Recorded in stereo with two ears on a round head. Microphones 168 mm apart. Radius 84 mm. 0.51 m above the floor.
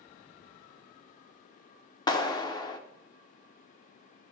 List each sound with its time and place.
2.1 s a clap: 25° left (ahead or behind), 1.1 m